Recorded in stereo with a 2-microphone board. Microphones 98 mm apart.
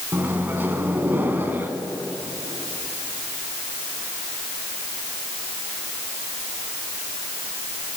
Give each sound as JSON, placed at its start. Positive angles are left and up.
{"t": 0.1, "sound": "a microwave", "side_deg": -20, "distance_m": 1.4}